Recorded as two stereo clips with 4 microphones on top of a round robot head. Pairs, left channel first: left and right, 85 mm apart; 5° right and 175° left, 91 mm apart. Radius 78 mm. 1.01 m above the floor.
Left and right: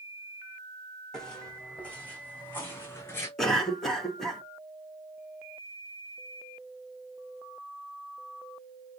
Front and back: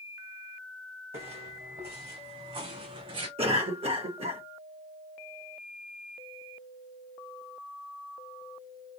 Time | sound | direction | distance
1.1 | footsteps | 175° left | 2.5 m
3.4 | a cough | 175° left | 2 m